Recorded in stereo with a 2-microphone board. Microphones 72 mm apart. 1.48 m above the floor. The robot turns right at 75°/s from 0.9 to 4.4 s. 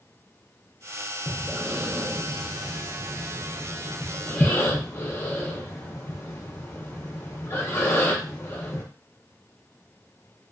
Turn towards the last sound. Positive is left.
turn(degrees=35)  # may be behind; listen again after turning